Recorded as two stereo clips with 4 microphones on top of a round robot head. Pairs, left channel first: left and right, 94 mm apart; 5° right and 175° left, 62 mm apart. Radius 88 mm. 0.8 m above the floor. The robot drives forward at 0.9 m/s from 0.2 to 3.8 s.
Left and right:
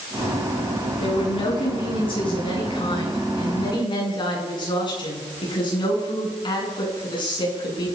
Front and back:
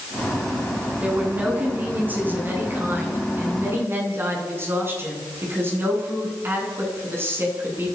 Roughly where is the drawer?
I don't hear a drawer.